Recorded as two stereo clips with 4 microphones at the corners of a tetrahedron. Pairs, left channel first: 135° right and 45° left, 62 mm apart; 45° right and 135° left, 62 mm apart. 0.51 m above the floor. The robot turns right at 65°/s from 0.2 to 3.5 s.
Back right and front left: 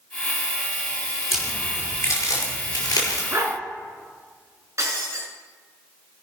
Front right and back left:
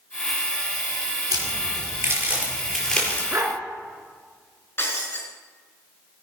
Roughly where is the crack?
Behind left.